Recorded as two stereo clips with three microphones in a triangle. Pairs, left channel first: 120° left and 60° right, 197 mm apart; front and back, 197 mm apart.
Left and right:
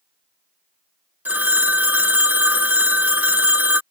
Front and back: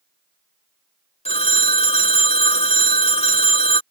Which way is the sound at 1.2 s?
15° left.